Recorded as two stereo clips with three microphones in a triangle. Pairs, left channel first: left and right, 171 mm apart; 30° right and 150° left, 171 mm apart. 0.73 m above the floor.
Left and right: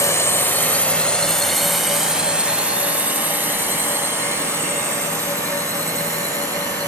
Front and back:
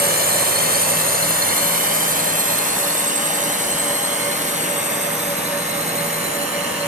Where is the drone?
160° left; by 6.9 s 160° right.